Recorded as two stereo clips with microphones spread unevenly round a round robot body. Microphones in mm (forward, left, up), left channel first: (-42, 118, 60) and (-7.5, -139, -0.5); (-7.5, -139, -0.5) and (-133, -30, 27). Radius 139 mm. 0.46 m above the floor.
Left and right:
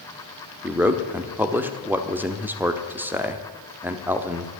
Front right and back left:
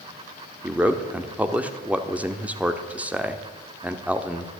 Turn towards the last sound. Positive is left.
turn(degrees=-130)